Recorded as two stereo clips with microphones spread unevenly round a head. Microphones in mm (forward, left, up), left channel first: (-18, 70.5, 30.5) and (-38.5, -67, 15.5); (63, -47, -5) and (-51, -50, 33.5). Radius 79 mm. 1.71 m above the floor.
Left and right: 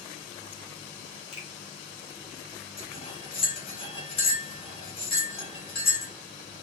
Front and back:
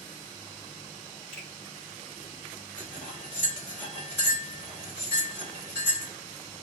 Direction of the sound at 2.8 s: 95° left.